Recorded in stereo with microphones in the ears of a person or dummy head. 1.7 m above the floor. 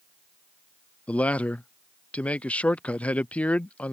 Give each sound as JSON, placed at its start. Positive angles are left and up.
{"t": 1.1, "sound": "a man speaking", "side_deg": 10}